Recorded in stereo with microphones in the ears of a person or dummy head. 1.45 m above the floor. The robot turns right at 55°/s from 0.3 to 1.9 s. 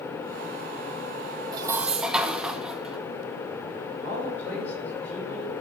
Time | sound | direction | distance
1.5 | dishes clattering | 20° right (ahead or behind) | 0.7 m
4.0 | a man speaking | 15° left (ahead or behind) | 7.5 m